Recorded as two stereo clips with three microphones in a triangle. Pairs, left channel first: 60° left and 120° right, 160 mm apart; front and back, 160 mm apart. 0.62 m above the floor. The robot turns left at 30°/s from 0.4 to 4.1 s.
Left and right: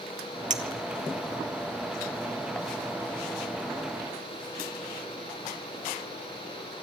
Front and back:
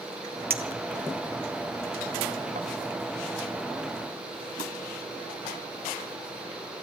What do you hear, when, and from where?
0.5 s a clink: 160° right, 1.5 m; by 2.7 s 135° left, 1.5 m